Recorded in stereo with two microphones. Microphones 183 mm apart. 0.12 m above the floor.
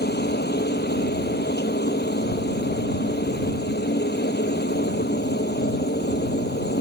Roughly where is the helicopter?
Left.